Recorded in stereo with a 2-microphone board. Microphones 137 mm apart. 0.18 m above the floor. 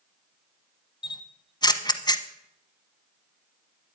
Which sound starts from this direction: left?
A camera shutter, at 1.0 s.